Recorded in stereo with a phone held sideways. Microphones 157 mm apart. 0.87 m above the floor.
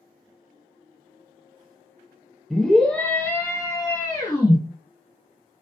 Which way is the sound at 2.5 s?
Centre (ahead or behind).